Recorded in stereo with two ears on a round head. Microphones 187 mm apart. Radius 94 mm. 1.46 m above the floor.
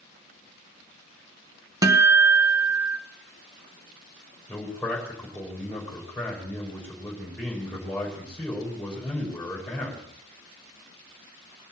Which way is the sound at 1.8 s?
15° right (ahead or behind).